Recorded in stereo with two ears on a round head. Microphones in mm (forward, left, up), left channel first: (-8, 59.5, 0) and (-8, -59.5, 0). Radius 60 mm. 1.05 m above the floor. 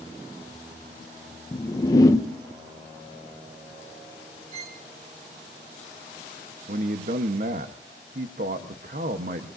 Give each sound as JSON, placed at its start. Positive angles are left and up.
{"t": 1.5, "sound": "a whoosh", "side_deg": 25, "distance_m": 0.8}
{"t": 4.5, "sound": "a violin", "side_deg": -40, "distance_m": 1.7}
{"t": 6.7, "sound": "a man speaking", "side_deg": -65, "distance_m": 1.0}